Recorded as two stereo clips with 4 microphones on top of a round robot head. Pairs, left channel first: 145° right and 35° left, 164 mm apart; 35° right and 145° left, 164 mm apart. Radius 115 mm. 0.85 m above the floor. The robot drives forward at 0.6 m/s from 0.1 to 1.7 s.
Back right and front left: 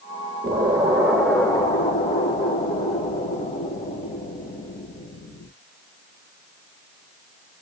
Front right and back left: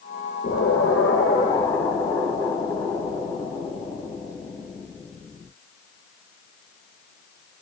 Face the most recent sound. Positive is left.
turn(degrees=-100)